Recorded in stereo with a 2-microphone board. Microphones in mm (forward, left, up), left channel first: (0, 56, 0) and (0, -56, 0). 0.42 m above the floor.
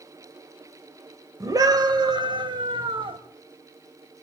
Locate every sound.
1.4 s a scream: 30° right (ahead or behind), 1.7 m; by 3.2 s 55° right (ahead or behind), 2 m